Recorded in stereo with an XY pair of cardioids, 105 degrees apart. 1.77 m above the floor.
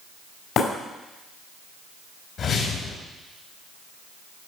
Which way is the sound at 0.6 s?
65° left.